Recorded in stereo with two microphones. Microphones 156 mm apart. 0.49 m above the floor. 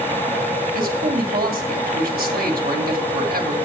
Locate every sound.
0.7 s a man speaking: 75° right (ahead or behind), 2.5 m